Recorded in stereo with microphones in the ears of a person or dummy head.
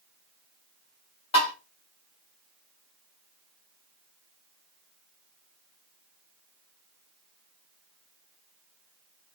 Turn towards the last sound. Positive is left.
turn(degrees=25)  # may be behind; listen again after turning